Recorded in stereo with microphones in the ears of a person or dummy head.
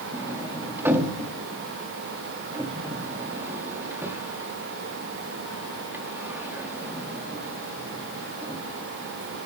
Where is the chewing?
No chewing in this recording.